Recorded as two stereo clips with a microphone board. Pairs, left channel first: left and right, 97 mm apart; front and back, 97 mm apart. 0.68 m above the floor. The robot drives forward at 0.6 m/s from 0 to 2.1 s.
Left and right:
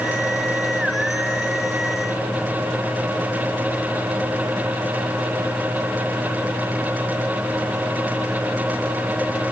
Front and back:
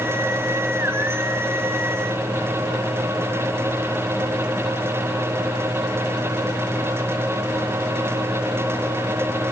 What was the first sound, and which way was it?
Only background noise.